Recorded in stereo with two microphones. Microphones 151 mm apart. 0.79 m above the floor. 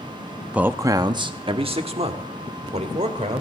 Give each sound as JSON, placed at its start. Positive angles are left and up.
{"t": 0.5, "sound": "a man speaking", "side_deg": -5, "distance_m": 0.6}